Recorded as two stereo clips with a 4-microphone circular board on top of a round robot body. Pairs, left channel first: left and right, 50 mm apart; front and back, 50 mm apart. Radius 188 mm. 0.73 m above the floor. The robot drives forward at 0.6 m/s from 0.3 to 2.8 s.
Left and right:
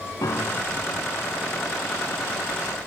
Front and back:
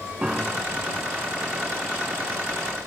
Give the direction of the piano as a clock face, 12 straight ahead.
8 o'clock.